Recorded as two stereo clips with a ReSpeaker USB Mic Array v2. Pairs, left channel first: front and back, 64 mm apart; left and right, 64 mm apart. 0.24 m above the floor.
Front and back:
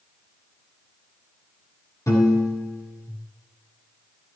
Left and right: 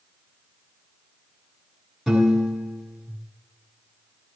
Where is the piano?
5° right, 2.5 m.